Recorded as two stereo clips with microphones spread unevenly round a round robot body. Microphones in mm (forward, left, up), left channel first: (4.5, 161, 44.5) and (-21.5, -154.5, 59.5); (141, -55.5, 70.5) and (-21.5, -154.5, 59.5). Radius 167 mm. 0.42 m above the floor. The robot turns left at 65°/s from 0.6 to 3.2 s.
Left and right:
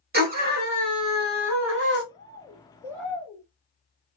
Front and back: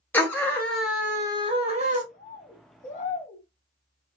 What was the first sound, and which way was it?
A scream, 50° right.